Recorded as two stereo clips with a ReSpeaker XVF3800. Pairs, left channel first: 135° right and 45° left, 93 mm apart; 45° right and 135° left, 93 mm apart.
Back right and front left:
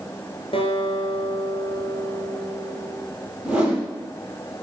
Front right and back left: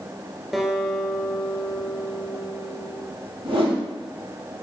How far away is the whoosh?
About 4 m.